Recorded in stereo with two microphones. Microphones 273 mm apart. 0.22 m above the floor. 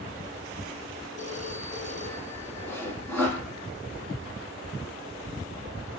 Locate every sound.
1.2 s a phone ringing: 60° left (ahead or behind), 7.5 m
2.7 s sawing: 10° left (ahead or behind), 6 m